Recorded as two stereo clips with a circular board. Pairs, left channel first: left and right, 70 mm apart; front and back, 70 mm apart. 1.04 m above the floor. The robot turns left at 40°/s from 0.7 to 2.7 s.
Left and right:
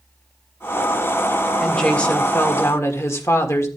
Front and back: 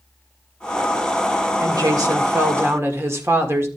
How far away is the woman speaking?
About 1.6 m.